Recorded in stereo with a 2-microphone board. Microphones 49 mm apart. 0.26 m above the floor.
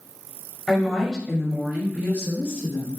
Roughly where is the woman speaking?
Centre.